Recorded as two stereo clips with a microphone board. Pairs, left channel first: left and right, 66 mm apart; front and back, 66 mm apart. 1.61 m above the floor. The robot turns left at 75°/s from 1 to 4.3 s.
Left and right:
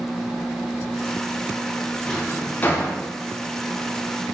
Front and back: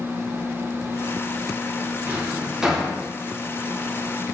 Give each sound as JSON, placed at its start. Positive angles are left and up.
{"t": 2.0, "sound": "a drawer", "azimuth_deg": 155, "distance_m": 0.8}